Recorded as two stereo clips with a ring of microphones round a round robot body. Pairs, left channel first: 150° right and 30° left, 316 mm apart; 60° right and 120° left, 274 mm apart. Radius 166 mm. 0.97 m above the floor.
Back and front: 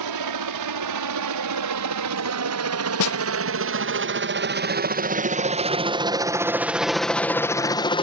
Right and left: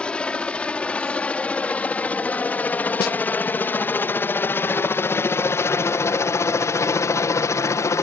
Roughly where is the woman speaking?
I don't hear a woman speaking.